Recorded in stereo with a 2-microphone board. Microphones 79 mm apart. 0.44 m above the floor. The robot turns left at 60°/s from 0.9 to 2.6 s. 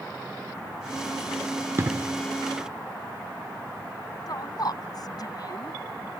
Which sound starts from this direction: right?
An explosion, at 1.8 s.